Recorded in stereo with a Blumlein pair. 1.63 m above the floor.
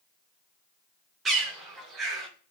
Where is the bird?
20° right, 1.0 m.